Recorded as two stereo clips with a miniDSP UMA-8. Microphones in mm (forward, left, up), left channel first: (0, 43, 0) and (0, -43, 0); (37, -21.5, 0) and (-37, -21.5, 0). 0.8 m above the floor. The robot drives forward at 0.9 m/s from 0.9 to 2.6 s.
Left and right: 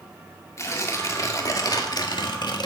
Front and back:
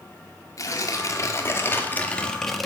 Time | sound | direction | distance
0.6 | tearing paper | 40° left | 2 m